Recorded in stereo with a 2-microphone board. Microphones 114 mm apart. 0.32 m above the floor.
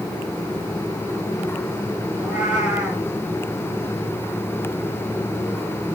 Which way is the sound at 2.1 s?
10° right (ahead or behind).